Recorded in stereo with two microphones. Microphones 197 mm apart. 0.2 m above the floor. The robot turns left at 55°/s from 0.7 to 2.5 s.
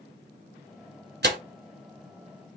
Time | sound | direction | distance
1.2 | tearing paper | 60° right (ahead or behind) | 0.8 m